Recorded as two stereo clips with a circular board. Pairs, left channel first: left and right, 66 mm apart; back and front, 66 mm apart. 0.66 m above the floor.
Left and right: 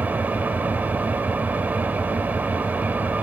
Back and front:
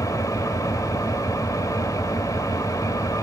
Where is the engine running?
155° right, 1.6 m.